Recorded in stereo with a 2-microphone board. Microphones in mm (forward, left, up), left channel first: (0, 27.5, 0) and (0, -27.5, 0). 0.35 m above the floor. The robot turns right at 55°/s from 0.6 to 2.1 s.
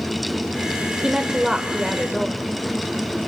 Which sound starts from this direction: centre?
A woman speaking, at 1.0 s.